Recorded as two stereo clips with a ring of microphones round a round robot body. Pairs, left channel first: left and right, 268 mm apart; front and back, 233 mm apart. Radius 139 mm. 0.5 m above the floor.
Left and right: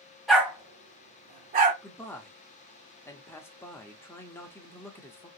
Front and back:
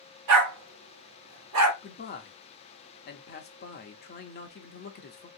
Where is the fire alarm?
I don't hear a fire alarm.